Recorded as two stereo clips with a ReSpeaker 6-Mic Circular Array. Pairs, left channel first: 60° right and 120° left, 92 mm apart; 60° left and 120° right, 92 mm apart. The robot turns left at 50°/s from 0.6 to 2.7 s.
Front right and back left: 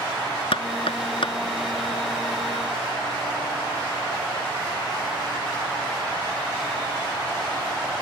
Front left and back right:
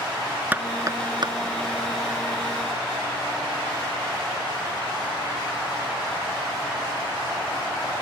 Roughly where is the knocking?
Ahead right.